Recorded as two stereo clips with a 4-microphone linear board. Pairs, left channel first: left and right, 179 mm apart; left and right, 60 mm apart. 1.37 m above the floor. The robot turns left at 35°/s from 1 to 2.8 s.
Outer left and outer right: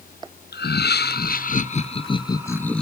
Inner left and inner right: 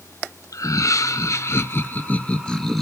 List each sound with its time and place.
0.5 s laughter: 70° left, 0.6 m; by 2.8 s 5° left, 0.6 m